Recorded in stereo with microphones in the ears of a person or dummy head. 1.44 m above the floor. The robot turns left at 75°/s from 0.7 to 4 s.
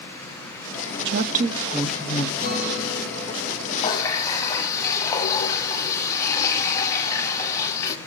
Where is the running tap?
30° left (ahead or behind), 1.5 m; by 8.0 s 15° left (ahead or behind), 1.5 m.